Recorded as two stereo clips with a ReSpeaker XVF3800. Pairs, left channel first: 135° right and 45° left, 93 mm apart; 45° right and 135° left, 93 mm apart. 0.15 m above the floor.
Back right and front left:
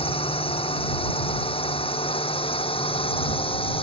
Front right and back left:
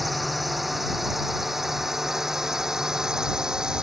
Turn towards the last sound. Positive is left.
turn(degrees=-145)